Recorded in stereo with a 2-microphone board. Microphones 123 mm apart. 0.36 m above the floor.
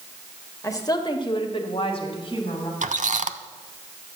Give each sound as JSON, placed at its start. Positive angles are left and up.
{"t": 0.6, "sound": "a woman speaking", "side_deg": 25, "distance_m": 1.5}
{"t": 2.8, "sound": "a squeak", "side_deg": -85, "distance_m": 0.6}